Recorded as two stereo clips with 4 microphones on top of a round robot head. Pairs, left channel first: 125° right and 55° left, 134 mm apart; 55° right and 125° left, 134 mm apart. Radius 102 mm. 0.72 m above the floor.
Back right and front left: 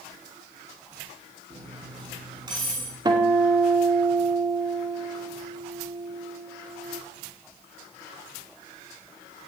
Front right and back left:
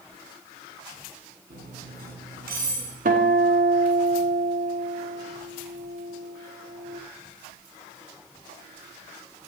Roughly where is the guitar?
Behind left.